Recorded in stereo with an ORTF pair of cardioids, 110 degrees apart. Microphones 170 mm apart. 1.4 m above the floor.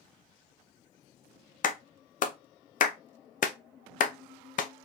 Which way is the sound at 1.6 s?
50° left.